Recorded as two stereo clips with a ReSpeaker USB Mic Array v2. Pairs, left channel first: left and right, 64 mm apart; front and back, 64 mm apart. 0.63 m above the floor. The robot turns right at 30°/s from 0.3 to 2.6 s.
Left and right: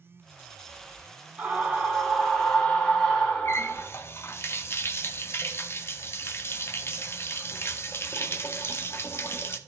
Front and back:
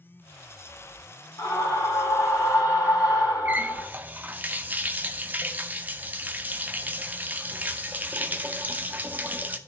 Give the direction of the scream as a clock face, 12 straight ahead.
1 o'clock.